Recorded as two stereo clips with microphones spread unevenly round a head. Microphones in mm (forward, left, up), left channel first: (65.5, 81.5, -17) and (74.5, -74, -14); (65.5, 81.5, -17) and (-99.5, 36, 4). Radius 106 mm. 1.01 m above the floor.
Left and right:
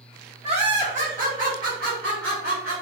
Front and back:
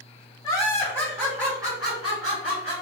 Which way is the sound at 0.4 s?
45° right.